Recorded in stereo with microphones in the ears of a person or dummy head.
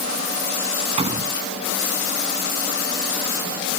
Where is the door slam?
30° right (ahead or behind).